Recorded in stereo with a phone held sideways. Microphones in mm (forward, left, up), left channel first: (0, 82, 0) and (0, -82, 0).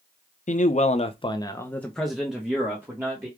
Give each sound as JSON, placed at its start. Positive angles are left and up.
{"t": 0.5, "sound": "a man speaking", "side_deg": 50, "distance_m": 0.7}